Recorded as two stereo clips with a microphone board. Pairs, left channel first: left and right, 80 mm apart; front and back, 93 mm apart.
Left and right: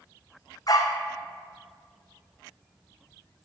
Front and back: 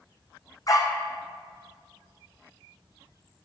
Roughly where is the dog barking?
Ahead left.